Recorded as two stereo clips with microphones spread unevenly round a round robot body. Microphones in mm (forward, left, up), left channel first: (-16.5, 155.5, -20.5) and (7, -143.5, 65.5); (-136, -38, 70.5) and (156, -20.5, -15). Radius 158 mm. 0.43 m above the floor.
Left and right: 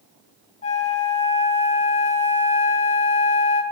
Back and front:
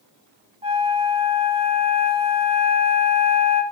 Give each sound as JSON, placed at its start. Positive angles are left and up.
{"t": 0.6, "sound": "a flute", "azimuth_deg": 50, "distance_m": 0.8}